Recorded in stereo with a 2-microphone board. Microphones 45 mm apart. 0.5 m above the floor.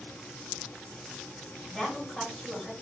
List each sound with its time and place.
1.7 s a woman speaking: 5° left (ahead or behind), 1.6 m